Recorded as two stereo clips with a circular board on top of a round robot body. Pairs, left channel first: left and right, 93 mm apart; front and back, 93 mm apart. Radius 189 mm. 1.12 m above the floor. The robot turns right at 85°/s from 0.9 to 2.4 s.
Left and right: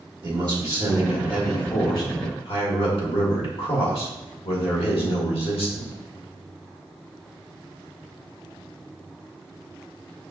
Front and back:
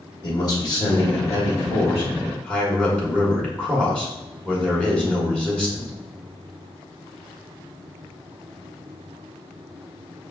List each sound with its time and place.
0.2 s a man speaking: 50° right, 1.6 m; by 5.9 s 80° left, 1.6 m